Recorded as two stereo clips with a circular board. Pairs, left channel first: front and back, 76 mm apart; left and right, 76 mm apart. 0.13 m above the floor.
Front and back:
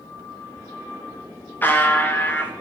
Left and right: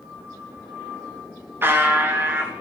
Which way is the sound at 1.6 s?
50° right.